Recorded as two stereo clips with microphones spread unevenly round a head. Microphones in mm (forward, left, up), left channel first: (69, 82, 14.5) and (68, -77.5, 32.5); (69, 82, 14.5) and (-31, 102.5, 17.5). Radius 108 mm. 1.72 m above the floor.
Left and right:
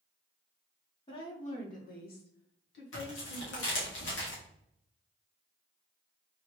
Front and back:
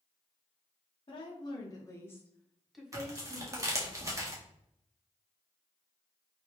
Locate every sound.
1.1 s a woman speaking: 30° left, 1.4 m; by 3.9 s 110° left, 1.6 m
2.9 s tearing paper: 110° left, 1.6 m